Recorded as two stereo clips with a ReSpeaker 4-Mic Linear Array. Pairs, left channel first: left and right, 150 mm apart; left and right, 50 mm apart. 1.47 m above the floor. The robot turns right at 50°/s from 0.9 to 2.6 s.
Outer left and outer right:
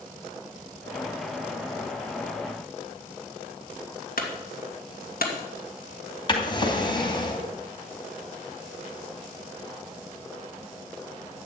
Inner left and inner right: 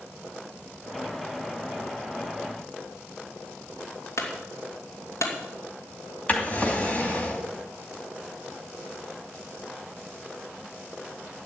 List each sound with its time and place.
4.2 s a clunk: 80° left, 2.5 m
6.3 s a drawer: 30° left (ahead or behind), 2.5 m